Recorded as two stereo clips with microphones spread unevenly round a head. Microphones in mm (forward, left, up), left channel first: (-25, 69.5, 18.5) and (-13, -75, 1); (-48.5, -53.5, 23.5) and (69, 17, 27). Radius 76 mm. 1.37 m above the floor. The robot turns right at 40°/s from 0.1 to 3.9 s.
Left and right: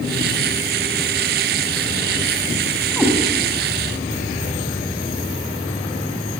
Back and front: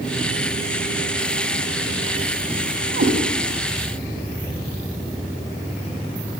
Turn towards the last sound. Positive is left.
turn(degrees=50)